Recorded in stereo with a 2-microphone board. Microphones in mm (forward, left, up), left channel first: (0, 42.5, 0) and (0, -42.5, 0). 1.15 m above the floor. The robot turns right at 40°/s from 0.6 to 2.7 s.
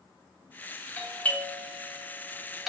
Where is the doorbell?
20° left (ahead or behind), 0.6 m; by 2.7 s centre (ahead or behind), 0.6 m.